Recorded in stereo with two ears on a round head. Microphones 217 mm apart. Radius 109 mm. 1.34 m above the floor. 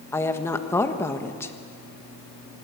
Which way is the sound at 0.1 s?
10° left (ahead or behind).